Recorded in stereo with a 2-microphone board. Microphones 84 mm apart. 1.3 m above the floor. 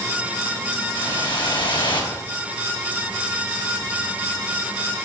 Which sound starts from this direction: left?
A whoosh, at 0.9 s.